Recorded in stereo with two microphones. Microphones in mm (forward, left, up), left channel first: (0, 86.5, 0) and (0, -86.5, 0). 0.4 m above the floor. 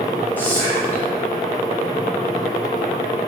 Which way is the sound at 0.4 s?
10° left (ahead or behind).